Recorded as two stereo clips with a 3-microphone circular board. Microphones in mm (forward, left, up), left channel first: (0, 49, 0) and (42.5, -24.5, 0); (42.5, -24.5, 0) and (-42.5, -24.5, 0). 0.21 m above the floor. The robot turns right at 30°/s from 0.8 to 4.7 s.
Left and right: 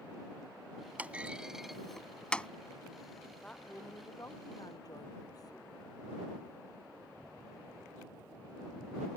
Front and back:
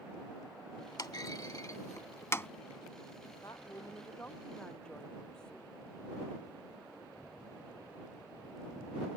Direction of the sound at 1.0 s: 5° left.